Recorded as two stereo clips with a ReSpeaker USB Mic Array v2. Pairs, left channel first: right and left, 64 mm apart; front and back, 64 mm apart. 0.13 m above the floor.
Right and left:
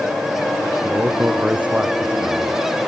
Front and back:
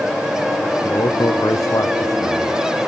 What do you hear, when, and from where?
0.8 s a man speaking: 20° left